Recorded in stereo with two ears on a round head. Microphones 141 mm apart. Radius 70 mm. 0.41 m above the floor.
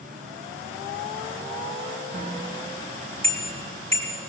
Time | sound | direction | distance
2.1 | a bicycle bell | 45° right (ahead or behind) | 3.5 m